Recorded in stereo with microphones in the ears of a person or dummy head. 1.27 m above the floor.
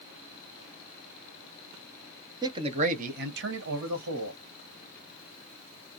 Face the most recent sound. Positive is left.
turn(degrees=-80)